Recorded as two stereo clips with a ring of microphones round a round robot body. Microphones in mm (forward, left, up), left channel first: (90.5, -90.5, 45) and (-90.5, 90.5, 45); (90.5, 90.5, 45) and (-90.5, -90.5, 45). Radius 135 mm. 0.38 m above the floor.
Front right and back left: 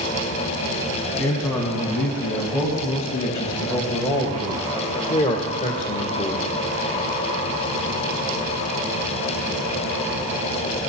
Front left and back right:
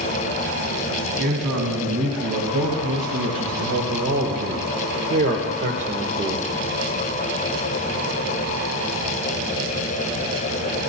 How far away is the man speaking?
About 3.5 m.